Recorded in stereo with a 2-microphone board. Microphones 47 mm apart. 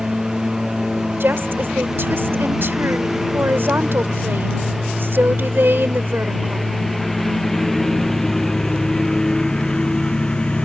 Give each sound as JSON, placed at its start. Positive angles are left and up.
{"t": 0.0, "sound": "a lawn mower", "side_deg": -15}
{"t": 1.2, "sound": "a woman speaking", "side_deg": -50}